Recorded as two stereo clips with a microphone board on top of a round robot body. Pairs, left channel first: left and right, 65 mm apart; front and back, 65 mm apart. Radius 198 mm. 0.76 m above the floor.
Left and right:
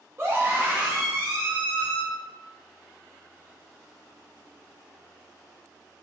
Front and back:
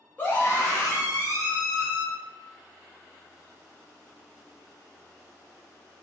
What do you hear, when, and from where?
0.2 s a scream: 55° right, 1.2 m; by 2.0 s 45° left, 1.3 m